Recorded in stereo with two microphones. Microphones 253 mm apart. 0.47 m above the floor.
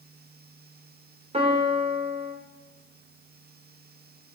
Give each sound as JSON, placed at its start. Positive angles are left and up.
{"t": 1.3, "sound": "a piano", "side_deg": -25, "distance_m": 1.2}